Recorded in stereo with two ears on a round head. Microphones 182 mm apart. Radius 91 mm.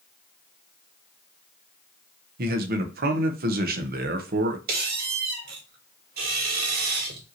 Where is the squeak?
45° right (ahead or behind), 1.3 m.